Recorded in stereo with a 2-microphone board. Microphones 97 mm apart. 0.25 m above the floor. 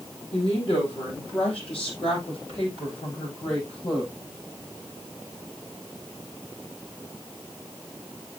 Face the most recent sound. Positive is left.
turn(degrees=70)  # may be behind; listen again after turning